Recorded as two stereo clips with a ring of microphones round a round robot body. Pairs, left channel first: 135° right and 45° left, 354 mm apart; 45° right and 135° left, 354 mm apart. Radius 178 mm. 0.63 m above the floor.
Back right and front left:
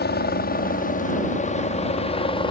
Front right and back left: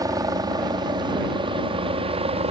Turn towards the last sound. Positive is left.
turn(degrees=175)